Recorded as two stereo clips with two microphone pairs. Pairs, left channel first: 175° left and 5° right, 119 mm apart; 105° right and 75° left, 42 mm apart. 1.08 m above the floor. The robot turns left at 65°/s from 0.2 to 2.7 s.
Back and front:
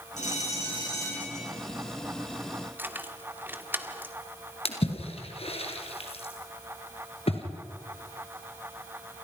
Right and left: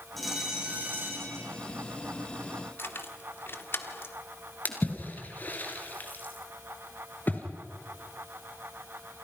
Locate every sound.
0.2 s a bell: 170° left, 9 m; by 1.5 s 85° left, 9 m
2.8 s keys jangling: 75° right, 1.7 m
4.7 s a splash: 150° right, 3.5 m